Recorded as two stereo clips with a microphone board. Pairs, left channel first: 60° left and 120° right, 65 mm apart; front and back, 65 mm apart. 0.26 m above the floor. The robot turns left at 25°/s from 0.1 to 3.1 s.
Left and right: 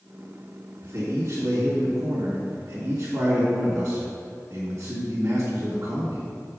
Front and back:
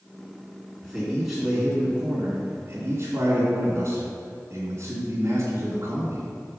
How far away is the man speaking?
About 2 m.